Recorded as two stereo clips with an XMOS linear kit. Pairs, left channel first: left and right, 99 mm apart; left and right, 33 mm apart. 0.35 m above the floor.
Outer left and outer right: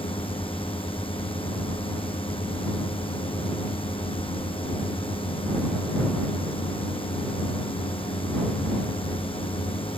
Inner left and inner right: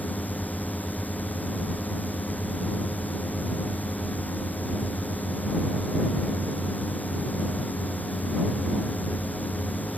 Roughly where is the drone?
Left.